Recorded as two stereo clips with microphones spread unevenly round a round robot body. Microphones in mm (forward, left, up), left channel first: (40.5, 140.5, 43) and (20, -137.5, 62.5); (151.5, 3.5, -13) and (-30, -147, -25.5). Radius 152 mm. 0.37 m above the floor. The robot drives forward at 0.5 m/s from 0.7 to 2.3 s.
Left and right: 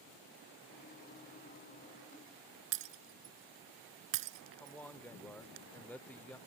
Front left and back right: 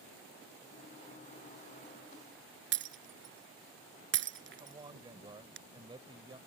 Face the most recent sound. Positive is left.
turn(degrees=160)